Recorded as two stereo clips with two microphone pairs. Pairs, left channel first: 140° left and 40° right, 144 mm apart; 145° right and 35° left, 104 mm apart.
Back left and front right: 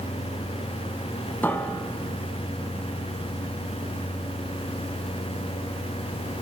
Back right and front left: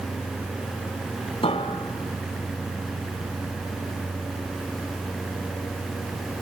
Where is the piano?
145° right, 3 m.